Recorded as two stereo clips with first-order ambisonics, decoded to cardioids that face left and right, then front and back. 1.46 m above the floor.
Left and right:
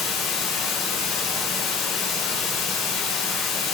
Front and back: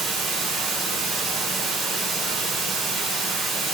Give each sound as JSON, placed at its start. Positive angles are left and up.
{"t": 0.0, "sound": "running water", "azimuth_deg": 110, "distance_m": 3.5}